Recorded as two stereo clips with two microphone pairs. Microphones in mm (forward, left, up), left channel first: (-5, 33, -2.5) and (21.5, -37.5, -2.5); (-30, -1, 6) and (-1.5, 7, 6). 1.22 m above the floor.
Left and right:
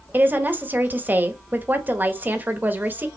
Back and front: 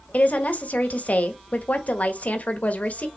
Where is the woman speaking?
135° right, 1.4 m.